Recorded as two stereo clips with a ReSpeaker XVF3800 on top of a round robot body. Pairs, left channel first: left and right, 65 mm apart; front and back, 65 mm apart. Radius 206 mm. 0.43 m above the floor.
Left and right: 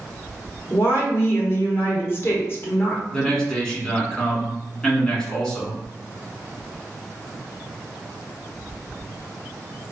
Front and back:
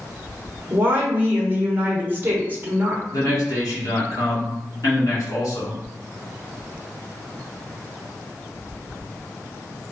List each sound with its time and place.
0.7 s a woman speaking: 130° left, 1.1 m
3.1 s a man speaking: 15° left, 1.6 m